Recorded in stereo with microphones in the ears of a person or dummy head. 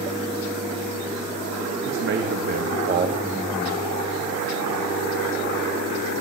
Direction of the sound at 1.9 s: 70° right (ahead or behind).